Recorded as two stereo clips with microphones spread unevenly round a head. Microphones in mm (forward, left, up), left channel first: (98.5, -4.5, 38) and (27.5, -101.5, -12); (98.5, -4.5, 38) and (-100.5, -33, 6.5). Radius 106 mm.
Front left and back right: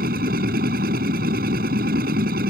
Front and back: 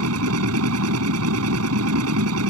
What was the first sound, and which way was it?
A machine running, 160° right.